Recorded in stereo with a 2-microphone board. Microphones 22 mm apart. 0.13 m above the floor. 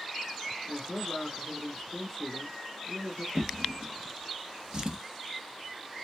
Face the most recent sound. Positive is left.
turn(degrees=-30)  # may be behind; listen again after turning